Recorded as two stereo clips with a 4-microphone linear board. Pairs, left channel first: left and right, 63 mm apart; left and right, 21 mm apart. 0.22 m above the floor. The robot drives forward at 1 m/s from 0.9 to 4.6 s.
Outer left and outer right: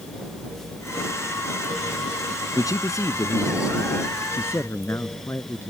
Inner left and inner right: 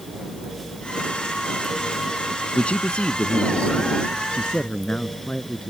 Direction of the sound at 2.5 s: 60° left (ahead or behind).